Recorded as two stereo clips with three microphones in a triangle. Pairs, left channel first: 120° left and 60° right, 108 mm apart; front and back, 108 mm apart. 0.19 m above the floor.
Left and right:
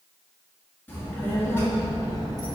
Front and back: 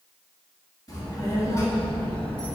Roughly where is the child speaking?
Ahead left.